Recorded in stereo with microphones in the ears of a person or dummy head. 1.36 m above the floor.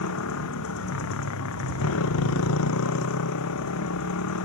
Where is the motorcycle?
70° left (ahead or behind).